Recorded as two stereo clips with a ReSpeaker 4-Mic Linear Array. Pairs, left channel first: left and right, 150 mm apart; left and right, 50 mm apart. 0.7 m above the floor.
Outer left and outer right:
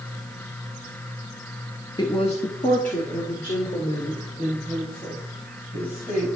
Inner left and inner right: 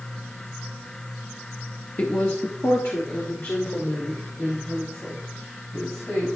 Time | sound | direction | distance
2.0 | a woman speaking | 30° left (ahead or behind) | 0.6 m